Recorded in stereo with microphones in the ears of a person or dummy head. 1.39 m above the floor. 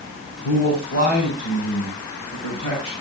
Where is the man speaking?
80° left, 8.5 m; by 2.9 s 70° left (ahead or behind), 9 m.